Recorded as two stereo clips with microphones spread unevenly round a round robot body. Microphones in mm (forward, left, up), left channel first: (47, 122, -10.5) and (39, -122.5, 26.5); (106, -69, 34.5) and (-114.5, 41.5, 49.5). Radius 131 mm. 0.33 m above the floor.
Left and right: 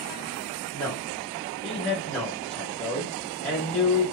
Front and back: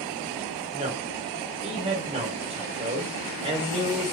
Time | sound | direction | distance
0.7 | a man speaking | 140° left | 1.0 m